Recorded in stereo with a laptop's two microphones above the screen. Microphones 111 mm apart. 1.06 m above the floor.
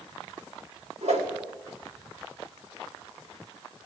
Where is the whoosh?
80° right, 2.5 m.